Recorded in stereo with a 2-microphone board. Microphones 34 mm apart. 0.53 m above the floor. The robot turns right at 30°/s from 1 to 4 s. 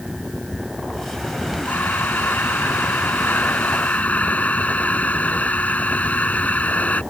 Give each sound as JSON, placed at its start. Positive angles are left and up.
{"t": 1.6, "sound": "breathing", "azimuth_deg": 65}